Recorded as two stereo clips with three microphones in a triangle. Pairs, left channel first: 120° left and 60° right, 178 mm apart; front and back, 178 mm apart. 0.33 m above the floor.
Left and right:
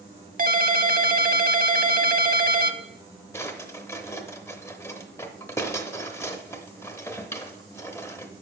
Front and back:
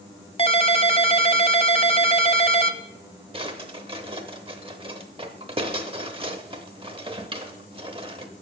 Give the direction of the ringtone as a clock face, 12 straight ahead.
2 o'clock.